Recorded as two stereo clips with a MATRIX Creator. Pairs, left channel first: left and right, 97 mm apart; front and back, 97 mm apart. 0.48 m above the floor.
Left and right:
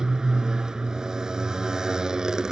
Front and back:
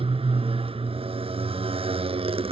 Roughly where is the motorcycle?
Behind.